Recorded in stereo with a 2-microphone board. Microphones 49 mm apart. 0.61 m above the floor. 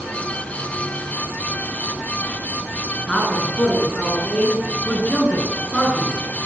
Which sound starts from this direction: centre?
A man speaking, at 3.1 s.